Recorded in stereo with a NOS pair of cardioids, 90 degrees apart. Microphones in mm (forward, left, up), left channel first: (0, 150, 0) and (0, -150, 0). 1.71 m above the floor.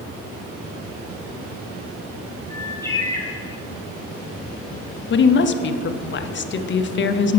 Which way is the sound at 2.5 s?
10° left.